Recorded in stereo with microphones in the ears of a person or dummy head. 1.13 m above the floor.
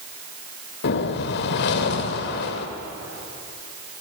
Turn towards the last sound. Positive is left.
turn(degrees=60)  # may be behind; listen again after turning